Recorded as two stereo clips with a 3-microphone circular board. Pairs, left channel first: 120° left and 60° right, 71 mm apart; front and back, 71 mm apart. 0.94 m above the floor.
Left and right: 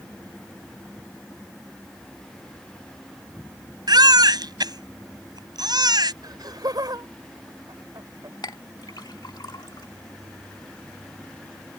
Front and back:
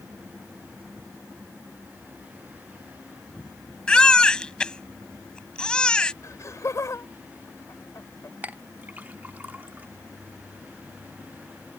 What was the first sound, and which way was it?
A baby crying, 75° right.